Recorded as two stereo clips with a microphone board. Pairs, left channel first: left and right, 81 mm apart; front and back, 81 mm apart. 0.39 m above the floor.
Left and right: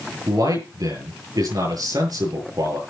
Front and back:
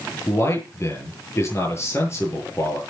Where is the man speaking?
55° right, 8.5 m.